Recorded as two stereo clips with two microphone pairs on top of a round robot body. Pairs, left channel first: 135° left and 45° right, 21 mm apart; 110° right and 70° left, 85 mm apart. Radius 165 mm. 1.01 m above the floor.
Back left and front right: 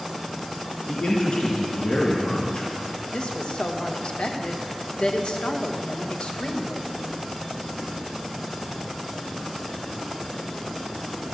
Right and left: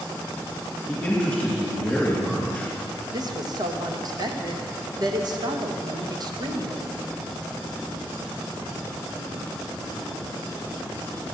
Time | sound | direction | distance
0.9 | a man speaking | 160° left | 2.5 m
3.1 | a woman speaking | 105° left | 1.4 m